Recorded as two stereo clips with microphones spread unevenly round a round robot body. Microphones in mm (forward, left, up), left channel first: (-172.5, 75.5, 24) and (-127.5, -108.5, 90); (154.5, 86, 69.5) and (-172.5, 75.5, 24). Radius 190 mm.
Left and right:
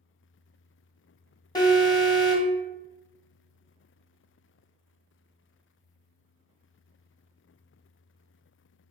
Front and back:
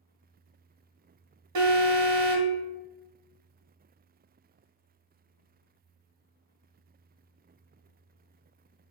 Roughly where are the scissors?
No scissors in this recording.